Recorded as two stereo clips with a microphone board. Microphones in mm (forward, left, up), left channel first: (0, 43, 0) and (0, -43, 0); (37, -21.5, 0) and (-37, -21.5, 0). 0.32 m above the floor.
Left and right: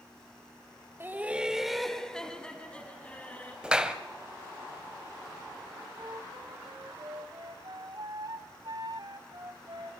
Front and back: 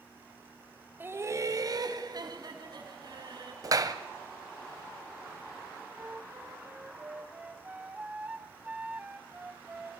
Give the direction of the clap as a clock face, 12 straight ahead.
6 o'clock.